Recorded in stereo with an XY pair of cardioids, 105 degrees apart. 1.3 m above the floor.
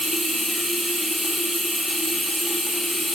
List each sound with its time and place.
0.0 s running water: 20° left, 0.8 m